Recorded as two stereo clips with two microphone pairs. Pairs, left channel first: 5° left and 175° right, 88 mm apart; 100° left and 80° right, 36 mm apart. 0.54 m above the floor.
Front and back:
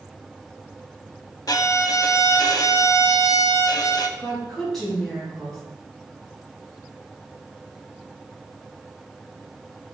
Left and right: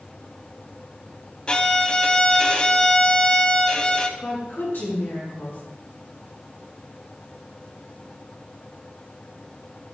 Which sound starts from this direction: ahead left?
A violin, at 1.5 s.